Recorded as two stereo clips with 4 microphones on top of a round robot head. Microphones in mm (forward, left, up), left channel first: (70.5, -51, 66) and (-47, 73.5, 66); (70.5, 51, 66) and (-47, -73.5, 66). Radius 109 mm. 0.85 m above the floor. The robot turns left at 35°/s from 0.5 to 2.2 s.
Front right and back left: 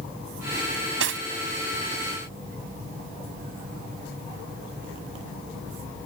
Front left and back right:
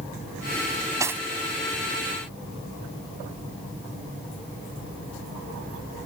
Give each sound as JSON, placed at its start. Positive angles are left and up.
{"t": 0.7, "sound": "cutlery clinking", "azimuth_deg": 160}